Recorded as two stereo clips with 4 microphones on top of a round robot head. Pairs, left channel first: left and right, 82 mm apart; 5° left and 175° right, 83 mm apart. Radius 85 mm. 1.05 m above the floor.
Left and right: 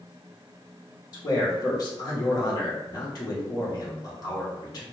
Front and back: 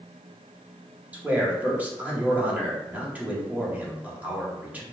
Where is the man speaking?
115° left, 1.1 m.